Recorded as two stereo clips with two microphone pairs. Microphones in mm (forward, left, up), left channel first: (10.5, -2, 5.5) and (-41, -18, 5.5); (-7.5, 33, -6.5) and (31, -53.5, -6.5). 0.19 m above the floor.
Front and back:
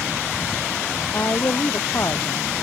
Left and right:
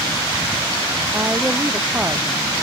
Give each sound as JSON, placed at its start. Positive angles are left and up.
{"t": 1.1, "sound": "a woman speaking", "azimuth_deg": 0}